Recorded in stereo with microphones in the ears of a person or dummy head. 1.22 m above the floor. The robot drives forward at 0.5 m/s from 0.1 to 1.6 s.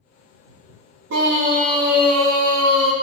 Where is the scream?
60° right (ahead or behind), 0.6 m; by 2.9 s 45° right (ahead or behind), 0.8 m.